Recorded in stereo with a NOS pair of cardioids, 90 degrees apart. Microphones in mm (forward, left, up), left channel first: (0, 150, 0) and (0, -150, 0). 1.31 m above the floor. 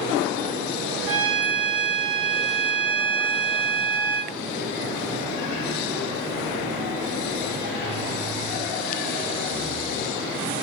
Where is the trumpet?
50° right, 1.7 m.